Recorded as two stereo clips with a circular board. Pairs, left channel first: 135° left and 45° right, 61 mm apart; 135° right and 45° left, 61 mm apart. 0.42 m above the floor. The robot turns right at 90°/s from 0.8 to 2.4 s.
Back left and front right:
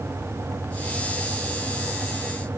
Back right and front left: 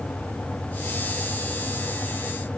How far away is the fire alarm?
No fire alarm in this recording.